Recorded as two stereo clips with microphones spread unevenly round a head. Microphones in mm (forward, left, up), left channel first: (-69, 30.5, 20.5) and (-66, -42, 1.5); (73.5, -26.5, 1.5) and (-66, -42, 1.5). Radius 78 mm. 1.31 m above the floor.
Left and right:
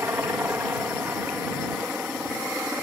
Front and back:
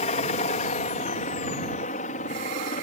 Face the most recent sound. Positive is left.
turn(degrees=-10)